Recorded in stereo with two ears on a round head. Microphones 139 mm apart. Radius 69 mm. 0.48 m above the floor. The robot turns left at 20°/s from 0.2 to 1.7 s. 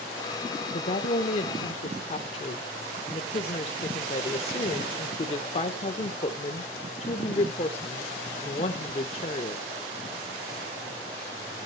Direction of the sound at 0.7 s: 45° left (ahead or behind).